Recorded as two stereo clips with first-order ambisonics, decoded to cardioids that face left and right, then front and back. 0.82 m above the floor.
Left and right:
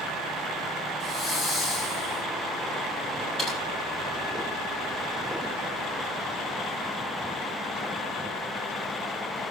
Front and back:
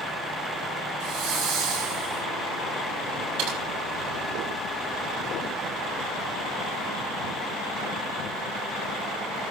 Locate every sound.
1.0 s a hiss: 160° left, 7 m
3.4 s typing on a keyboard: 165° left, 7 m